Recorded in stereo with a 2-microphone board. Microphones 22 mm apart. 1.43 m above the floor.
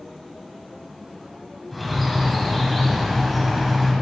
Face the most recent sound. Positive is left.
turn(degrees=-5)  # may be behind; listen again after turning